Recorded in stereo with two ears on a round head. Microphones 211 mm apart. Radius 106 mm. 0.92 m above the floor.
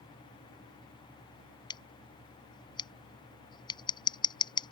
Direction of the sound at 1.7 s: 20° left (ahead or behind).